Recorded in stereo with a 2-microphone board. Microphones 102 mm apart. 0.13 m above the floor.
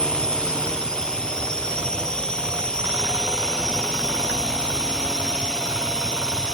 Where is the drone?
10° left (ahead or behind).